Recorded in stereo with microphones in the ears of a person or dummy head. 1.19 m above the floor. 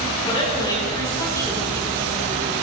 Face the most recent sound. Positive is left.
turn(degrees=5)  # may be behind; listen again after turning